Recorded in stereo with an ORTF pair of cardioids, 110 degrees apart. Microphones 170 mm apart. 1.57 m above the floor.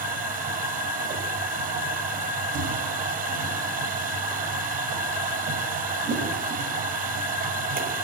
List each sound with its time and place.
0.0 s a machine running: 55° right, 7 m